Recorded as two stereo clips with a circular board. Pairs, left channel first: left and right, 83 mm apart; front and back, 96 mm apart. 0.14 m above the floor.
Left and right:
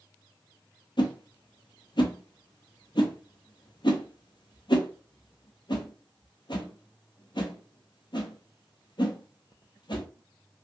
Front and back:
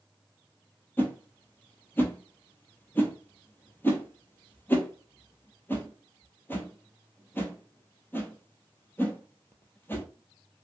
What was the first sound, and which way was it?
A whoosh, 70° left.